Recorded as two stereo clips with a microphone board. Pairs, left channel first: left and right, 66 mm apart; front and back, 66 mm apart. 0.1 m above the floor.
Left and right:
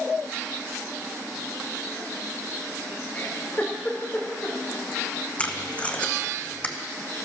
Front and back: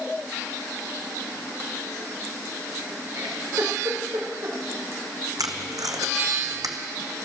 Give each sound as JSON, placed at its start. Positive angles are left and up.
{"t": 3.1, "sound": "a giggle", "azimuth_deg": 150, "distance_m": 3.5}
{"t": 5.4, "sound": "tape being pulled", "azimuth_deg": 160, "distance_m": 1.1}